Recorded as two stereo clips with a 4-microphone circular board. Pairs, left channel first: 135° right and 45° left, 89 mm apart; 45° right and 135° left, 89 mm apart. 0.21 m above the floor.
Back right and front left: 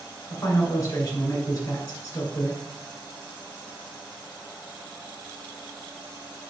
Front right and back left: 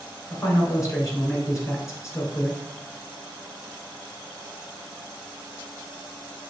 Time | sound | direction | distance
0.3 | a man speaking | 90° right | 1.9 m